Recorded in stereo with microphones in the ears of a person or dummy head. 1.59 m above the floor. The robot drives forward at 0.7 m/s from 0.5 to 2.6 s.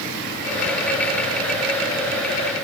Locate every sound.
Only background noise.